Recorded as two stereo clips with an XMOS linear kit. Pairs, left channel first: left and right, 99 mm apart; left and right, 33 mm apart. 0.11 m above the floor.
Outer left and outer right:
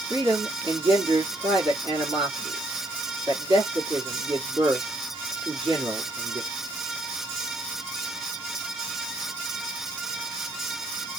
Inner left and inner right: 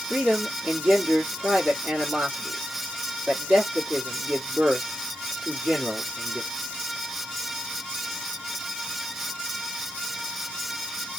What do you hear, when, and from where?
0.1 s a man speaking: 50° right (ahead or behind), 2.5 m